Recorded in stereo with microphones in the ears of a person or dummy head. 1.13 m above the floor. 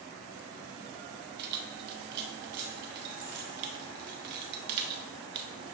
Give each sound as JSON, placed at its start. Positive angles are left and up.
{"t": 1.4, "sound": "keys jangling", "side_deg": -55, "distance_m": 0.7}